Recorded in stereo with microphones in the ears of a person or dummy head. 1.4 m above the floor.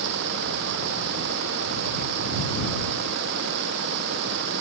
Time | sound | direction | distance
0.0 | running water | 60° right (ahead or behind) | ?